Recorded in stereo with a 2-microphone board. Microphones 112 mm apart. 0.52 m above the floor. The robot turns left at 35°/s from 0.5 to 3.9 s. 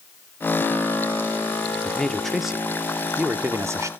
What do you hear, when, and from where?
1.9 s a man speaking: 15° left, 0.7 m; by 3.9 s 55° right, 0.7 m